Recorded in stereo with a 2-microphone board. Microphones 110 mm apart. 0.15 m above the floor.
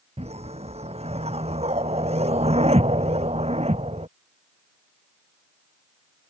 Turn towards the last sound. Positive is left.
turn(degrees=-70)  # may be behind; listen again after turning